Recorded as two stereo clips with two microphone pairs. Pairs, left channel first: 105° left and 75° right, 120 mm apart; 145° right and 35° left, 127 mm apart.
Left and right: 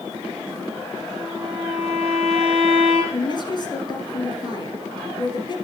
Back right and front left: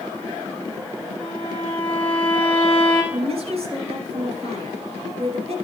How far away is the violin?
About 5 m.